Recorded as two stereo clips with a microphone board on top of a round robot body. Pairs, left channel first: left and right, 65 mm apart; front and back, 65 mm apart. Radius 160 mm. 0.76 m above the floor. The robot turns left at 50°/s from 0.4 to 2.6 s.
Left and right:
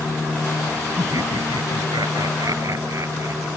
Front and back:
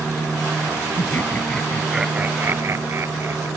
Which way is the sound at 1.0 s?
50° right.